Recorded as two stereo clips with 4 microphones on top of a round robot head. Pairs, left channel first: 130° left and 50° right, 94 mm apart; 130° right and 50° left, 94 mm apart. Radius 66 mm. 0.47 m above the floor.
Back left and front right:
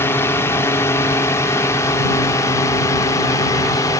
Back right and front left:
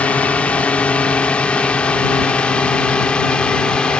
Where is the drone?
165° left; by 4.0 s 155° left.